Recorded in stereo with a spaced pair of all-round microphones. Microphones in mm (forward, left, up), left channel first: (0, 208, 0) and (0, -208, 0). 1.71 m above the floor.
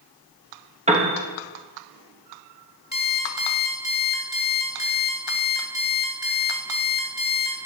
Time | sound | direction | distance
0.9 | a piano | 15° right (ahead or behind) | 1.1 m
2.9 | an alarm clock | 45° left (ahead or behind) | 1.8 m